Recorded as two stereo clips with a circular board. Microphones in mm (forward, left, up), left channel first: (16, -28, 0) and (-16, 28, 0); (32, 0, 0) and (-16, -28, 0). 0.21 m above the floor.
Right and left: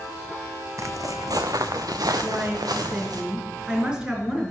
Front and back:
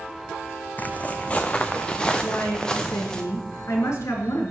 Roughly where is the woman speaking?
Ahead left.